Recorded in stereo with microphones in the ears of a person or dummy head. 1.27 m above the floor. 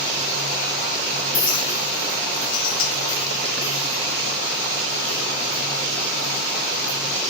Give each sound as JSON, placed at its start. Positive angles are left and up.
{"t": 1.3, "sound": "a clink", "side_deg": 45, "distance_m": 1.1}